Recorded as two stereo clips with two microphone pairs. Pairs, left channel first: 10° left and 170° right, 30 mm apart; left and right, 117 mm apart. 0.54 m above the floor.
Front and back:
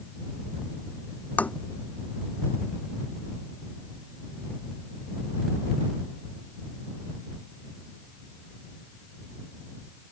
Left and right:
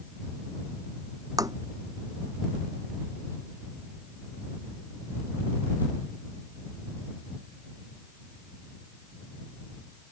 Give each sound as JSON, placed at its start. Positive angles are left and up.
{"t": 1.4, "sound": "tapping", "azimuth_deg": -30}